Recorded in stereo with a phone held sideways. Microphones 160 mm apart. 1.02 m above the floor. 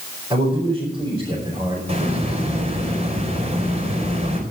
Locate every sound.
0.3 s a man speaking: 25° right (ahead or behind), 5.5 m
1.9 s a hiss: 40° right (ahead or behind), 4 m